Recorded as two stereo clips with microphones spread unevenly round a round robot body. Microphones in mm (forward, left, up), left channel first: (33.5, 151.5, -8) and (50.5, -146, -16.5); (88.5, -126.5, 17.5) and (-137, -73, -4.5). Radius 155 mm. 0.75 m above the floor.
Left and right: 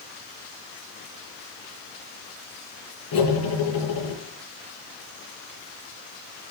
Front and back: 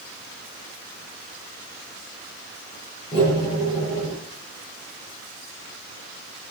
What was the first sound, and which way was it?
Cutlery clinking, 60° left.